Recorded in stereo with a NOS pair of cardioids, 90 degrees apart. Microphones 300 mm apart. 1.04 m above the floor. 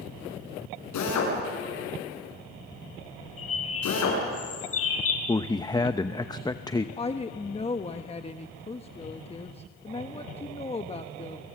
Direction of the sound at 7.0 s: 20° left.